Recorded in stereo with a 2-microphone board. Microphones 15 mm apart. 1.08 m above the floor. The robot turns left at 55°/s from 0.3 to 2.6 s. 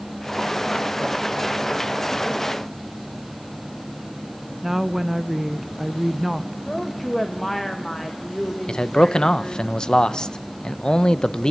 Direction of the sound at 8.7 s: 60° left (ahead or behind).